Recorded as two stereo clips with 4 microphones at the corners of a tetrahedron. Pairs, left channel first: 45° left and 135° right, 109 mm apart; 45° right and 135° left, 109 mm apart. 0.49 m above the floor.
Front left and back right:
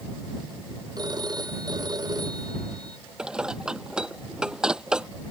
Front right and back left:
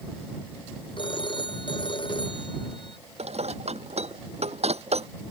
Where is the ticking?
No ticking in this recording.